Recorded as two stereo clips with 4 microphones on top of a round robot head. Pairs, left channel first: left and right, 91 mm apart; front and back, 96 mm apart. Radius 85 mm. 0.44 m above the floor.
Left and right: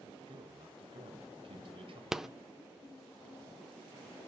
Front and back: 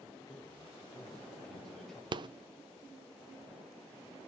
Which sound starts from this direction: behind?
A rattle, at 2.1 s.